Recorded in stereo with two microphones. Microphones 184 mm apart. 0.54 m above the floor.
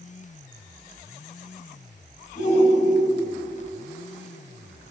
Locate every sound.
2.4 s a shout: 45° left (ahead or behind), 3 m